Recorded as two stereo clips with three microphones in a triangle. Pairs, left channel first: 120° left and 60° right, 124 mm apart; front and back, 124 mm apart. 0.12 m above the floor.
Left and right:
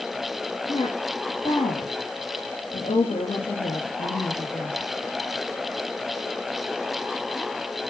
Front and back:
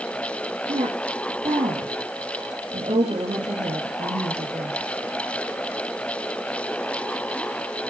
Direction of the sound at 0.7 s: 140° left.